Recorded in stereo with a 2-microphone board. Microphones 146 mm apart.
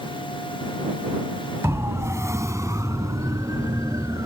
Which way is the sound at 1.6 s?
20° right (ahead or behind).